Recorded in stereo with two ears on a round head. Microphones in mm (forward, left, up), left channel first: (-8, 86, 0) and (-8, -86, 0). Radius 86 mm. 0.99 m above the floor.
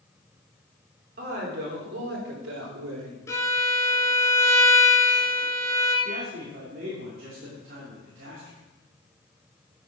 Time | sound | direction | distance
1.2 | a woman speaking | 50° right (ahead or behind) | 3.5 m
3.3 | a violin | 15° left (ahead or behind) | 2.5 m
6.0 | a man speaking | 50° right (ahead or behind) | 3 m